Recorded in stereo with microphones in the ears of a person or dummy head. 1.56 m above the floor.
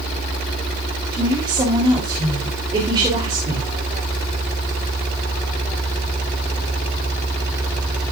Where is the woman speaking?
25° right (ahead or behind), 3.5 m.